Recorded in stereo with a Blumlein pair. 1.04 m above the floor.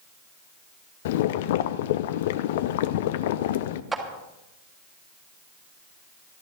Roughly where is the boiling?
Ahead left.